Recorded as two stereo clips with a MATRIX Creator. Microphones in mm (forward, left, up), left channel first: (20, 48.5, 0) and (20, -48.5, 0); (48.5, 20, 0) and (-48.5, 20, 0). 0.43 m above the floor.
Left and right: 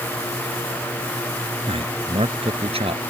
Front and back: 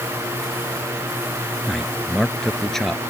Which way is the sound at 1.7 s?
85° right.